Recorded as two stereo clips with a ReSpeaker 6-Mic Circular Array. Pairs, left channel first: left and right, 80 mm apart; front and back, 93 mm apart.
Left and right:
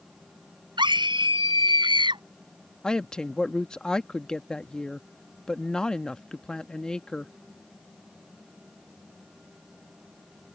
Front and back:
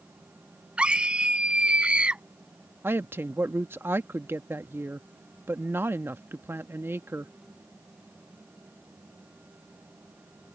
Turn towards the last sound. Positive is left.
turn(degrees=160)